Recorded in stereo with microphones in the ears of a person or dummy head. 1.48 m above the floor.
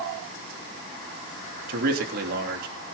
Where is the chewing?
No chewing in this recording.